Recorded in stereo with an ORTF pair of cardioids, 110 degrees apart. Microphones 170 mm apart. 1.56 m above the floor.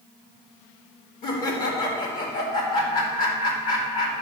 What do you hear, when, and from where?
1.2 s laughter: 50° left, 4 m